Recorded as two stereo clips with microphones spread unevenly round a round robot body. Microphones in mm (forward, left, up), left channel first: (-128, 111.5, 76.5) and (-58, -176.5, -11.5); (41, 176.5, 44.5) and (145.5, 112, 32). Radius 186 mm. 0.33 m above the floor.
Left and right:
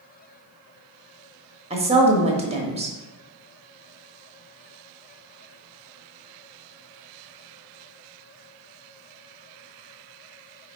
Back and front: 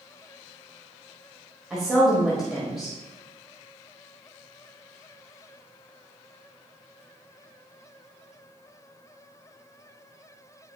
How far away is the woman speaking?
About 1.1 m.